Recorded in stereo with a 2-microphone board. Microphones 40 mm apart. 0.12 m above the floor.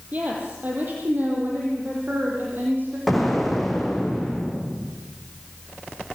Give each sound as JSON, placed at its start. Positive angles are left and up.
{"t": 0.1, "sound": "a woman speaking", "side_deg": -40, "distance_m": 4.5}
{"t": 3.1, "sound": "an explosion", "side_deg": 0, "distance_m": 4.5}